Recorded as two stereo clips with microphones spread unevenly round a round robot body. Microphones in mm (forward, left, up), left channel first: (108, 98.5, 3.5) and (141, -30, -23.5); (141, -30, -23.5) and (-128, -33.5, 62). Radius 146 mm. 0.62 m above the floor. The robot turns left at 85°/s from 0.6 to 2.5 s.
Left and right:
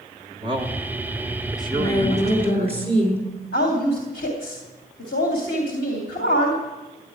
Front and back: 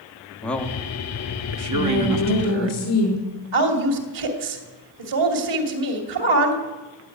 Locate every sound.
0.4 s a man speaking: 65° right, 1.7 m; by 2.7 s 135° left, 1.7 m
1.7 s a woman speaking: 95° left, 7.5 m; by 3.2 s 25° left, 7.5 m
3.5 s a woman speaking: 160° left, 3 m